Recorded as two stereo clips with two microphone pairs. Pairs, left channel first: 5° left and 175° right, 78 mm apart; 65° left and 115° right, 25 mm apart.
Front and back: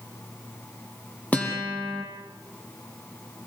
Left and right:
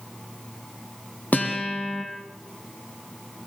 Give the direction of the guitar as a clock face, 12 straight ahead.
10 o'clock.